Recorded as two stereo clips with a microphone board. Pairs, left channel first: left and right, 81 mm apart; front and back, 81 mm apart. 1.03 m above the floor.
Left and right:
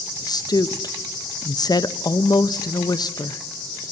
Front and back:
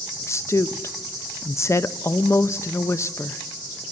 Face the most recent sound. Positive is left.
turn(degrees=55)